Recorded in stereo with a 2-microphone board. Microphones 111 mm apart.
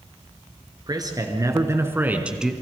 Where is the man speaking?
35° right (ahead or behind), 3.5 m; by 2.5 s centre (ahead or behind), 2 m.